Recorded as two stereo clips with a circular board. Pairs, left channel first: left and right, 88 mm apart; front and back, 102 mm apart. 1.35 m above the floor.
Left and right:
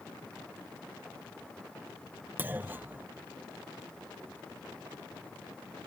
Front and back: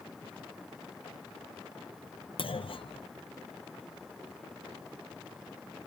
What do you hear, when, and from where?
2.4 s a clunk: 20° right